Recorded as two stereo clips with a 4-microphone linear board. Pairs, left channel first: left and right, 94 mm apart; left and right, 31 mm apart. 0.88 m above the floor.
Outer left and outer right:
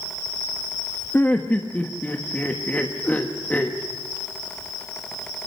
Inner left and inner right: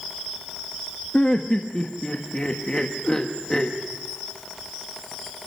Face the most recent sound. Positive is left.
turn(degrees=15)  # may be behind; listen again after turning